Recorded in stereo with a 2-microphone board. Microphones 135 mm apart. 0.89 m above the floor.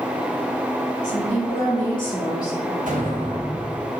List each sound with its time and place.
1.0 s a woman speaking: 65° left (ahead or behind), 1.6 m; by 2.8 s 25° left (ahead or behind), 2.5 m
2.9 s an explosion: 80° right, 1.0 m